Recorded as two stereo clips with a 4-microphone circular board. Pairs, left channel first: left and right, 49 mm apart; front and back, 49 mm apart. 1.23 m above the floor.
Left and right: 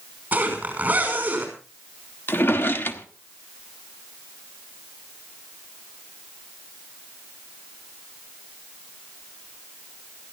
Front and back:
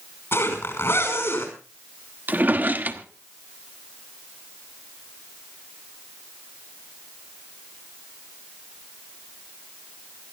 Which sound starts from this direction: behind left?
A drawer, at 2.3 s.